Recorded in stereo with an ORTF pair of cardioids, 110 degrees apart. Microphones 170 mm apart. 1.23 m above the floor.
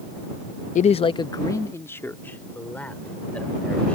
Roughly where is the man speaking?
Ahead left.